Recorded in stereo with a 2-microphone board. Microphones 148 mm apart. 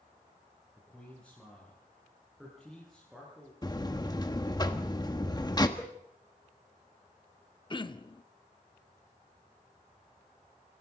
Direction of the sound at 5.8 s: 15° left (ahead or behind).